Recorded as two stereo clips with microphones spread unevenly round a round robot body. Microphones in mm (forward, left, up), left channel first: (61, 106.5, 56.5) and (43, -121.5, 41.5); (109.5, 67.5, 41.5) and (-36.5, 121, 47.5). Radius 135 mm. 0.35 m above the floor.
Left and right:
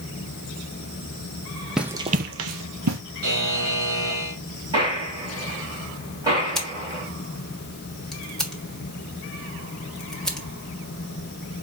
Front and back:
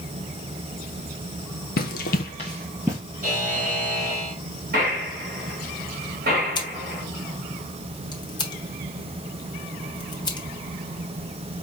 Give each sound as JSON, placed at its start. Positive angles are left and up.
{"t": 1.8, "sound": "running footsteps", "azimuth_deg": -5, "distance_m": 0.7}
{"t": 3.2, "sound": "a buzzer", "azimuth_deg": -140, "distance_m": 2.5}
{"t": 4.7, "sound": "a gunshot", "azimuth_deg": -170, "distance_m": 2.5}
{"t": 6.5, "sound": "scissors", "azimuth_deg": -10, "distance_m": 1.4}